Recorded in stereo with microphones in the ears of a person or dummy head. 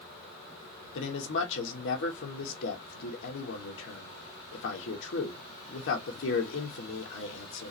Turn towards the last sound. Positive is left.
turn(degrees=70)  # may be behind; listen again after turning